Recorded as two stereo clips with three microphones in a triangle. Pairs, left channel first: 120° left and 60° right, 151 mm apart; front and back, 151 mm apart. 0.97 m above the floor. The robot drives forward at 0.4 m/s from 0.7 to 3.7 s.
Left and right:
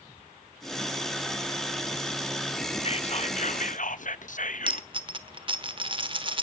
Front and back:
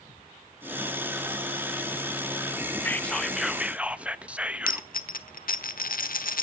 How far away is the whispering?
About 1.0 m.